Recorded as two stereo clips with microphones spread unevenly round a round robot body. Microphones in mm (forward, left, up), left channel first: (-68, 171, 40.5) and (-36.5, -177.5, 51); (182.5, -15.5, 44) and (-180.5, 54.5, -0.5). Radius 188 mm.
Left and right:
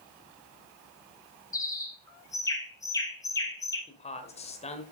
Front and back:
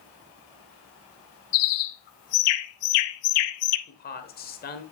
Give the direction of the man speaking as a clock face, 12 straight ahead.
11 o'clock.